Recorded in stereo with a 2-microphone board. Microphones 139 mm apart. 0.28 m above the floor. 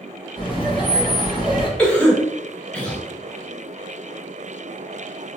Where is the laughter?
40° left (ahead or behind), 1.3 m.